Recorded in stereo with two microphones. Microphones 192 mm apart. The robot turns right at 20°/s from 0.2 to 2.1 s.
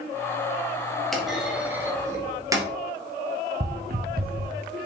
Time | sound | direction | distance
1.1 | a clunk | centre (ahead or behind) | 2 m
3.6 | footsteps | 50° right (ahead or behind) | 1.1 m